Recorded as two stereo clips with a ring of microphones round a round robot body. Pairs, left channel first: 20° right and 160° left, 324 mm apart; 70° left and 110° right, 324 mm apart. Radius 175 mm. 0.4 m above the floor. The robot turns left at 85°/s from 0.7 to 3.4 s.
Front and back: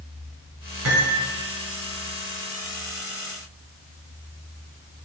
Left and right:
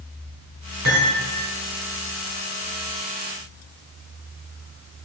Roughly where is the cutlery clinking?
Behind right.